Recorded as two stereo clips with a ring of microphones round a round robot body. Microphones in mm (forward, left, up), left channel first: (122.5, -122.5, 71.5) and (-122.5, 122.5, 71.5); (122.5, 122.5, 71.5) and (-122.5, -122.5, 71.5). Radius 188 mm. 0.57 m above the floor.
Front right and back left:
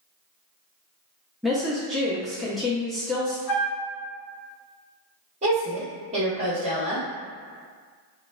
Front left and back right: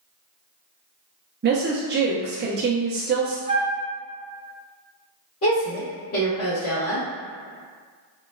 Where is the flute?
60° right, 0.7 m.